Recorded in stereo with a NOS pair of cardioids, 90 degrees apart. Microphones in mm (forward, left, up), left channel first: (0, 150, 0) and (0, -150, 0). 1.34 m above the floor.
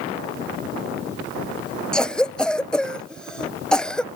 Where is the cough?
5° left, 0.7 m.